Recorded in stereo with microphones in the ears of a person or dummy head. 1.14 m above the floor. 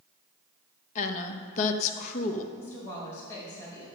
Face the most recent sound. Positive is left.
turn(degrees=15)  # may be behind; listen again after turning